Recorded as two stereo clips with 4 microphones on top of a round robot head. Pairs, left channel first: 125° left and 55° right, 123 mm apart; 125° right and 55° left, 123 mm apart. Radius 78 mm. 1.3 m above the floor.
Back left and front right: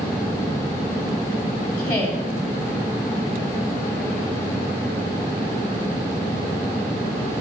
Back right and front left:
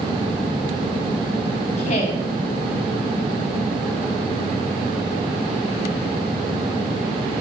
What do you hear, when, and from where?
1.8 s a woman speaking: 170° right, 3 m